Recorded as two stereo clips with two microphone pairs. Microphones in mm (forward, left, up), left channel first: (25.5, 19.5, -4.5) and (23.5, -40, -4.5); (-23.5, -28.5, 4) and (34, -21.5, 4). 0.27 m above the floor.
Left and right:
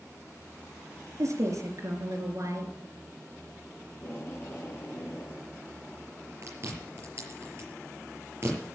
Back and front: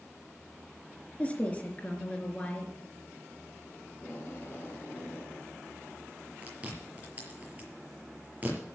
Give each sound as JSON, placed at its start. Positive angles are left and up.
{"t": 1.2, "sound": "a woman speaking", "azimuth_deg": -105, "distance_m": 3.5}
{"t": 3.9, "sound": "tape being pulled", "azimuth_deg": 135, "distance_m": 4.0}
{"t": 6.4, "sound": "chewing", "azimuth_deg": -55, "distance_m": 5.5}